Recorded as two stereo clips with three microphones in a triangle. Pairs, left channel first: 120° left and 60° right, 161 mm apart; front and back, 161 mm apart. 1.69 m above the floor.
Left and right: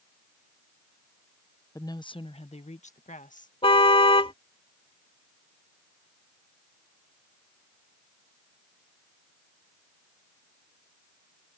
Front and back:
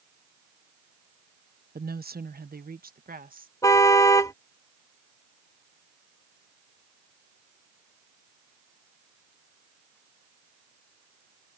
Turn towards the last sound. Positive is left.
turn(degrees=65)